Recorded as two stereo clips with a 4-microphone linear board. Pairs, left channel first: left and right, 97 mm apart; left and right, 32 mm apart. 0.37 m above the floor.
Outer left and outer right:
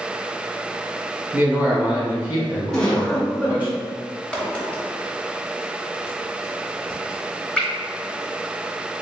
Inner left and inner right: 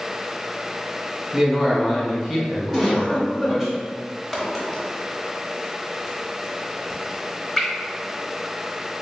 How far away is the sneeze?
No sneeze in this recording.